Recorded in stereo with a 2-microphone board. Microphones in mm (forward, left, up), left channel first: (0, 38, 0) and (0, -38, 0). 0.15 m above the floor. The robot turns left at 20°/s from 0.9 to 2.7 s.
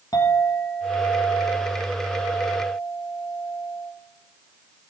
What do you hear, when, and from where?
0.1 s a clink: 70° left, 2.5 m; by 3.9 s 30° left, 2.5 m